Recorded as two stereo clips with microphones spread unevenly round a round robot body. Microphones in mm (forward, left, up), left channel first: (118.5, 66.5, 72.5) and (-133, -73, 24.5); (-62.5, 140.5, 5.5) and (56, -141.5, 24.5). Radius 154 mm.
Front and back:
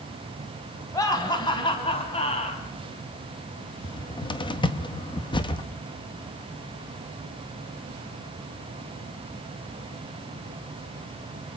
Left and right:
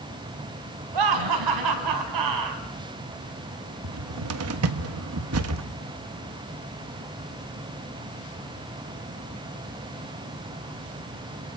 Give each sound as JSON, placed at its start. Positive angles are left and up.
{"t": 0.9, "sound": "laughter", "azimuth_deg": -50, "distance_m": 5.0}
{"t": 3.8, "sound": "a cupboard door", "azimuth_deg": -50, "distance_m": 1.4}